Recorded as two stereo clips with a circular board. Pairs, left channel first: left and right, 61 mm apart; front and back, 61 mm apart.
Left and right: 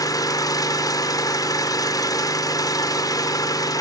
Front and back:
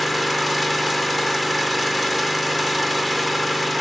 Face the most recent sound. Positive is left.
turn(degrees=90)